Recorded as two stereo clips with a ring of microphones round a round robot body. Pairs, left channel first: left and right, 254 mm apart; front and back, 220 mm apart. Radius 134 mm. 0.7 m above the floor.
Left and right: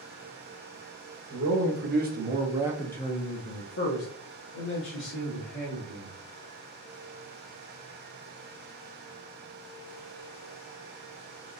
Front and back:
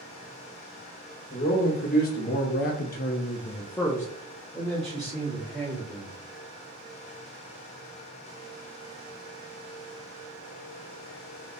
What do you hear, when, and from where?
1.3 s a man speaking: 55° right, 1.2 m; by 6.1 s 95° left, 2.0 m